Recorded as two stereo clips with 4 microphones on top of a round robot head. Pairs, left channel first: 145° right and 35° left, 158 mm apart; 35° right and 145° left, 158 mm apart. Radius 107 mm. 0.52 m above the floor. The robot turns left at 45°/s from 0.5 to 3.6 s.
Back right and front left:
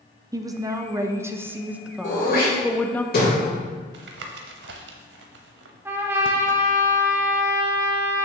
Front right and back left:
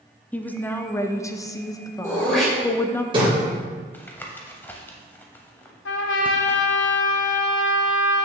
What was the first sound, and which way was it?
A woman speaking, 25° left.